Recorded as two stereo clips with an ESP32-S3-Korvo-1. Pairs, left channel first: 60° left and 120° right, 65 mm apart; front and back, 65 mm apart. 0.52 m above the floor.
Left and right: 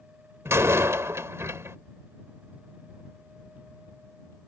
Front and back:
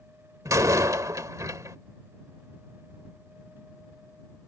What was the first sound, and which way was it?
A door slam, 155° right.